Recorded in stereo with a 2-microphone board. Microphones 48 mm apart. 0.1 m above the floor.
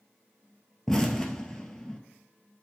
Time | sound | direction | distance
0.9 | an explosion | 10° left (ahead or behind) | 1.0 m